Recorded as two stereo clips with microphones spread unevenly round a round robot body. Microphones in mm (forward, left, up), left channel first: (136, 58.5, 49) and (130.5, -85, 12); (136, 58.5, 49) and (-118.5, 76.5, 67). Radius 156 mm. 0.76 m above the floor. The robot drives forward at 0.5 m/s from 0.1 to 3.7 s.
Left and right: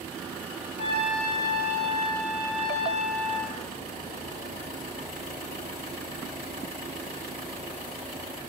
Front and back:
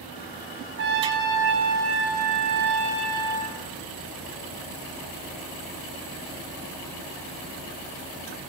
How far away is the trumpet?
About 4 m.